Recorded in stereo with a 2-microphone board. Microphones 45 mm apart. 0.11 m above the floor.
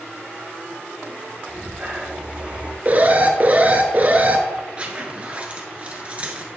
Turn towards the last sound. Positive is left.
turn(degrees=-30)  # may be behind; listen again after turning